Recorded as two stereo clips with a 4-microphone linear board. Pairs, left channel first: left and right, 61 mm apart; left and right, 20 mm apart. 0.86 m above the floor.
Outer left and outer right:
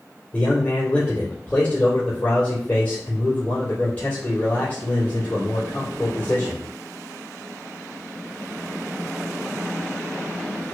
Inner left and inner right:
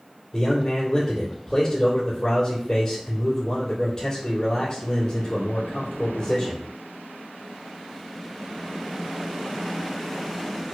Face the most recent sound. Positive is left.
turn(degrees=25)  # may be behind; listen again after turning